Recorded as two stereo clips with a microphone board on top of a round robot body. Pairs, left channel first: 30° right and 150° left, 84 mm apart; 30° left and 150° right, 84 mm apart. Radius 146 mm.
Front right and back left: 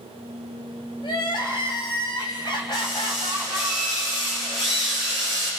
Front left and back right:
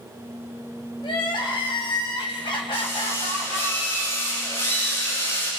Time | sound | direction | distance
1.0 | crying | 5° left | 2 m
2.7 | a drill | 30° right | 9.5 m